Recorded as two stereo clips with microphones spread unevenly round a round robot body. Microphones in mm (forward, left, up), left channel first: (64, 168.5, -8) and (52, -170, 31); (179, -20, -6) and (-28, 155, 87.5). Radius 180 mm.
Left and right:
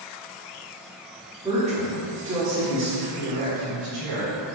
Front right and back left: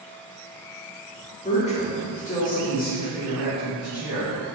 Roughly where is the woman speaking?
Ahead.